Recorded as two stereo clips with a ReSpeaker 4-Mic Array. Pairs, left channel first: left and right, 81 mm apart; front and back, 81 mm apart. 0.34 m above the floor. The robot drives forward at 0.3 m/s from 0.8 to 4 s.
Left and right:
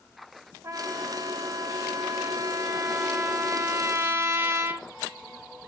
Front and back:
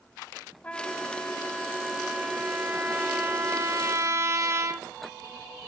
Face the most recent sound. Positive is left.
turn(degrees=-145)